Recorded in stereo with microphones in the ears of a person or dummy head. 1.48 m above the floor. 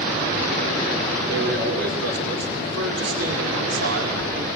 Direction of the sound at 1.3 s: 65° right (ahead or behind).